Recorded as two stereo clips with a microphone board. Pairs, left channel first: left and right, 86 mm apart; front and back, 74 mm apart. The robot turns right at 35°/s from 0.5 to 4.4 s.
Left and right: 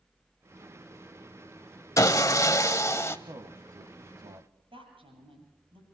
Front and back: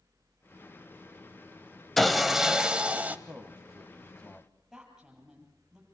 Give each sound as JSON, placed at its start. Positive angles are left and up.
{"t": 2.0, "sound": "sawing", "azimuth_deg": 85, "distance_m": 0.8}
{"t": 3.3, "sound": "a man speaking", "azimuth_deg": -110, "distance_m": 1.3}
{"t": 4.7, "sound": "a woman speaking", "azimuth_deg": -95, "distance_m": 8.0}